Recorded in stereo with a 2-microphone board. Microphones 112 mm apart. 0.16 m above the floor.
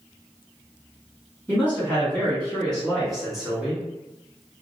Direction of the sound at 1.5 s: 20° left (ahead or behind).